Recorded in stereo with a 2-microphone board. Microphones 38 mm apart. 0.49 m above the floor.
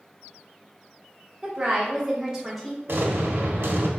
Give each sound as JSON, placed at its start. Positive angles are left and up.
{"t": 1.4, "sound": "a woman speaking", "side_deg": -15, "distance_m": 1.3}
{"t": 2.9, "sound": "an explosion", "side_deg": -80, "distance_m": 1.0}